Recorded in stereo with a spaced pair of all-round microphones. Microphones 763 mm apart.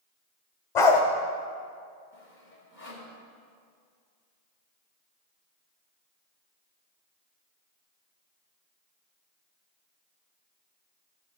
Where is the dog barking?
70° left (ahead or behind), 1.8 m.